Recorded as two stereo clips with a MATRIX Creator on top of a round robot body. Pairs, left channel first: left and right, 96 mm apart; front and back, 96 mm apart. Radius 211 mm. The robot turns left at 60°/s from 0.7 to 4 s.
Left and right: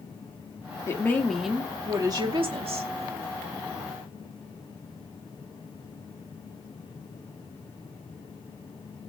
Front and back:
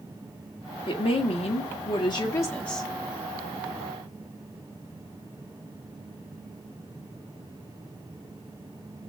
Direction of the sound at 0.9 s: 30° left.